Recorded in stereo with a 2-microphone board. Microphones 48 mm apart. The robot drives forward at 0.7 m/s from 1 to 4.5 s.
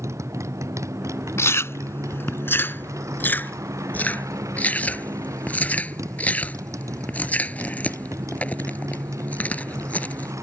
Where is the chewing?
60° left (ahead or behind); by 10.3 s 30° left (ahead or behind).